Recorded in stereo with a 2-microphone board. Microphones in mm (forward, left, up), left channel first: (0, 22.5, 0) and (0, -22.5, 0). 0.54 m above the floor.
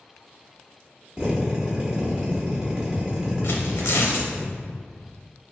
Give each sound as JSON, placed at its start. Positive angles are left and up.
{"t": 1.2, "sound": "a drill", "side_deg": -20, "distance_m": 1.1}
{"t": 3.4, "sound": "tearing paper", "side_deg": 75, "distance_m": 0.6}